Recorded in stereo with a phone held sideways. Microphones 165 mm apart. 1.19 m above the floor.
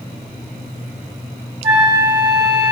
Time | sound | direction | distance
1.6 | a flute | 40° right (ahead or behind) | 1.1 m